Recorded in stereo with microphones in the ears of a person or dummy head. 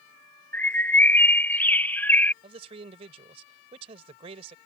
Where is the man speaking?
30° right (ahead or behind).